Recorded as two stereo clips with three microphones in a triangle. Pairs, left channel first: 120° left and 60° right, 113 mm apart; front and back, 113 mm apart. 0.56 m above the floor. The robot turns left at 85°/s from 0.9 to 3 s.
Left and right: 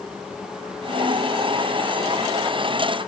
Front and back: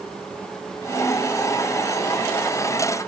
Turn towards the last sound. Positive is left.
No sound to turn to.